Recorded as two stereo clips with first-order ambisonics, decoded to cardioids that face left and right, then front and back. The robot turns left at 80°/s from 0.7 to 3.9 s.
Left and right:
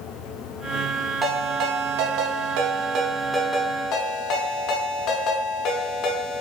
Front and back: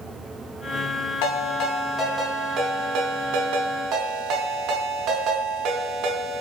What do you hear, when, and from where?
1.2 s a ringtone: 10° right, 0.6 m; by 6.4 s 135° left, 0.6 m